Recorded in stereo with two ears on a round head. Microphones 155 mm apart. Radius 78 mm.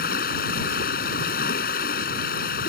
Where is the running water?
60° left (ahead or behind).